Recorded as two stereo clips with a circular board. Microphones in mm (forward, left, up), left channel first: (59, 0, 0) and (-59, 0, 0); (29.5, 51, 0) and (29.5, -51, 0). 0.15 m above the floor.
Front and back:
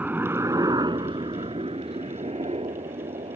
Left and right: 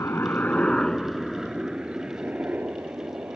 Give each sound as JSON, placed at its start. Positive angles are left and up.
{"t": 0.0, "sound": "a helicopter", "azimuth_deg": 115}